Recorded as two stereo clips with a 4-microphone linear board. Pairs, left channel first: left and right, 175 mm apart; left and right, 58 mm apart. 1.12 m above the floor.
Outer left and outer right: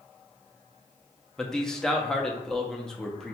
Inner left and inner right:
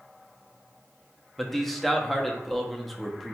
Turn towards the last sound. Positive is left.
turn(degrees=5)  # may be behind; listen again after turning